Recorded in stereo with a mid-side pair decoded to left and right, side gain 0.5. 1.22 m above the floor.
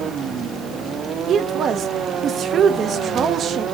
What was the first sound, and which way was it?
A woman speaking, 55° right.